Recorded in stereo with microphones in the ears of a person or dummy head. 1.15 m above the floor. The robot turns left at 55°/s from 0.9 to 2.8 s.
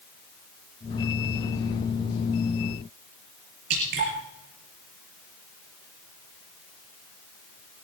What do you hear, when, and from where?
3.7 s dripping: 55° right (ahead or behind), 4 m